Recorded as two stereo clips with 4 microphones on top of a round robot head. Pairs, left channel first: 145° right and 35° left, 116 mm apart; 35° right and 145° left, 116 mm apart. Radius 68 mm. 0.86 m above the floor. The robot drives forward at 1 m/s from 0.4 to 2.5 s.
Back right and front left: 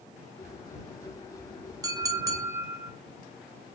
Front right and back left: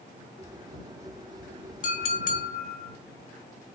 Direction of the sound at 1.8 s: 25° right.